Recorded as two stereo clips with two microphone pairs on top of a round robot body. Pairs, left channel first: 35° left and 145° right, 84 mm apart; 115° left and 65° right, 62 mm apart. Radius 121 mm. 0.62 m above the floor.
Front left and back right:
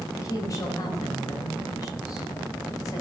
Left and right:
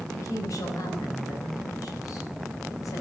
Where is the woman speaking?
85° left, 4 m.